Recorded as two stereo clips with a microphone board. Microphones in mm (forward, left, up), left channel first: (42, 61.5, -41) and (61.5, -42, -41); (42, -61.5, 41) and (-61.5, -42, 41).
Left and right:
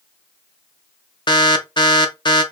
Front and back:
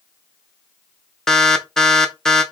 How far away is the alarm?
About 0.8 m.